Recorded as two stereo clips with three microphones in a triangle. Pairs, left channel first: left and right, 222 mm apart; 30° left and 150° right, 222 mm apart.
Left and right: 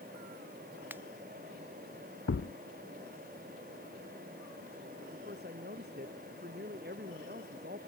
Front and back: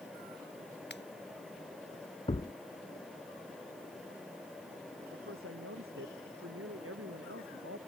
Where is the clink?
No clink in this recording.